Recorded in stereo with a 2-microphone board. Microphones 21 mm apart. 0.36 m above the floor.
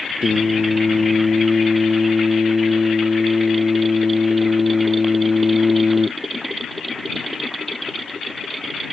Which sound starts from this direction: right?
Singing, at 0.2 s.